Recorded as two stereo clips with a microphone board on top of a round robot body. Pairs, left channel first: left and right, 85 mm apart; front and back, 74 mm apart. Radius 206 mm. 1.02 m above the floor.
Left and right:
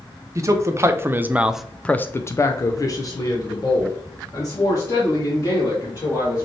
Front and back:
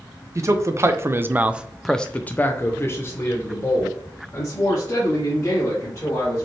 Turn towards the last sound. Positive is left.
turn(degrees=50)